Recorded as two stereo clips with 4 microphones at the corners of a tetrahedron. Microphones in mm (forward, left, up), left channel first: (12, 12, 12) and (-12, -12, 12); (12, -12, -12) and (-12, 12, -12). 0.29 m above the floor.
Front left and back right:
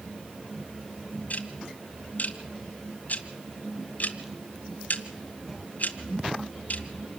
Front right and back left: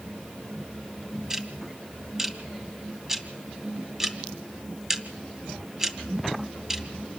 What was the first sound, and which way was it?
Ticking, 65° left.